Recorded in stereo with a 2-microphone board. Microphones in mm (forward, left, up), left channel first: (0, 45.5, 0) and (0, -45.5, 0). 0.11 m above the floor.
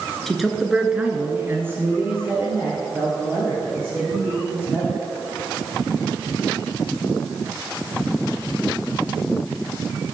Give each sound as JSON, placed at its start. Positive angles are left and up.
{"t": 0.3, "sound": "a man speaking", "side_deg": 0, "distance_m": 1.5}